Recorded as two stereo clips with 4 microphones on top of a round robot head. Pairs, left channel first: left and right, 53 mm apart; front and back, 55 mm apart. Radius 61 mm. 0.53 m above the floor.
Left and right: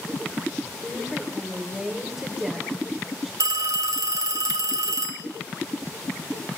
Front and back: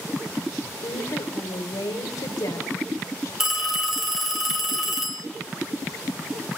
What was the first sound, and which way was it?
A woman speaking, 5° right.